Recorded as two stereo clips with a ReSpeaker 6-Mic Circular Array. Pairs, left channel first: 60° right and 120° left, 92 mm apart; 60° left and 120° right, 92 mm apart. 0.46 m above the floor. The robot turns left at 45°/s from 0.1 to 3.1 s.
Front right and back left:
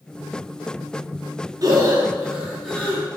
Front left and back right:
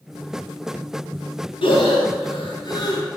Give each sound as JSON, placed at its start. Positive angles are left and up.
{"t": 1.6, "sound": "breathing", "azimuth_deg": 75, "distance_m": 3.5}